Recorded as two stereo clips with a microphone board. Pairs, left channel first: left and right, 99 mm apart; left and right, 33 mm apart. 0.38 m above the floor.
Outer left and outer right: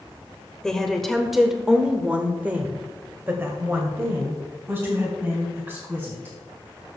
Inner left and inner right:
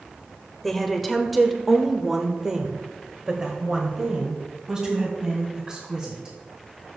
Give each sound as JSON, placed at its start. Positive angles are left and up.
{"t": 0.6, "sound": "a woman speaking", "side_deg": 5, "distance_m": 1.1}